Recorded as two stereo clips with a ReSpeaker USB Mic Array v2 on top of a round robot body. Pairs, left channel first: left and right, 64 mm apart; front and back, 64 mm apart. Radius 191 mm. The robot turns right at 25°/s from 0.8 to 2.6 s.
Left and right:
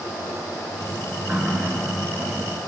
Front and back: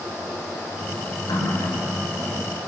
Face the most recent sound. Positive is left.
turn(degrees=10)